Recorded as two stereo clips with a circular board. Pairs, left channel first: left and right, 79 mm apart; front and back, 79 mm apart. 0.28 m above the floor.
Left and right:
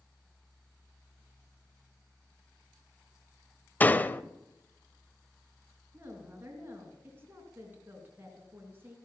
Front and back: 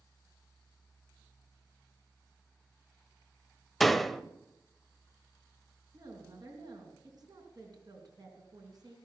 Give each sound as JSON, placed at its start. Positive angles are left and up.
{"t": 3.8, "sound": "a door slam", "azimuth_deg": 85, "distance_m": 0.6}
{"t": 5.9, "sound": "a woman speaking", "azimuth_deg": -150, "distance_m": 4.0}